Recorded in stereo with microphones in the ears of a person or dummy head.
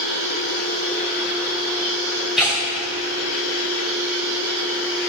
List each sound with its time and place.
2.4 s tearing paper: 5° right (ahead or behind), 2 m